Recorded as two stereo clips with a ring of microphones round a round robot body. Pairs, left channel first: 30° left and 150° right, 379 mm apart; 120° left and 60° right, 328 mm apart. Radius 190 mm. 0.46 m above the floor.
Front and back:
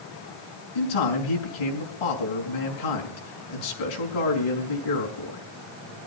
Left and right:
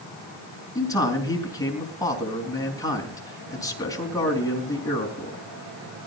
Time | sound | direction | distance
0.8 | a man speaking | 40° left | 4.5 m